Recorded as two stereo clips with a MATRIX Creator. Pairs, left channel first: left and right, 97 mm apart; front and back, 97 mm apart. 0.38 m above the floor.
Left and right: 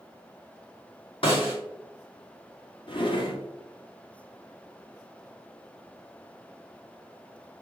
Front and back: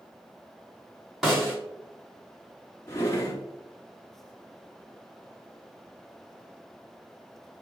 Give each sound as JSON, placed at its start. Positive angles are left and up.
{"t": 1.2, "sound": "a snare drum", "azimuth_deg": 95, "distance_m": 1.8}
{"t": 2.9, "sound": "a drawer", "azimuth_deg": 65, "distance_m": 1.1}